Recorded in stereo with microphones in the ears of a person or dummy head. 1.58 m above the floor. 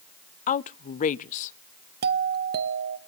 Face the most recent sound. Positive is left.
turn(degrees=-50)  # may be behind; listen again after turning